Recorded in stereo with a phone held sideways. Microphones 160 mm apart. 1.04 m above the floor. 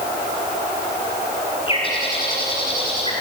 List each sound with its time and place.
1.7 s a bird: 35° left (ahead or behind), 8 m